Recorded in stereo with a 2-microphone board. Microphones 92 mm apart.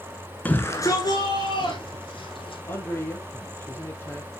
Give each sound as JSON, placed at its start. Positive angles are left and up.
{"t": 0.5, "sound": "a shout", "side_deg": 15, "distance_m": 1.2}
{"t": 2.7, "sound": "a man speaking", "side_deg": 25, "distance_m": 2.5}